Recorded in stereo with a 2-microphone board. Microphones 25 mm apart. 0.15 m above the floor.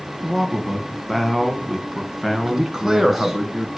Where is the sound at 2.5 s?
20° right (ahead or behind), 1.3 m.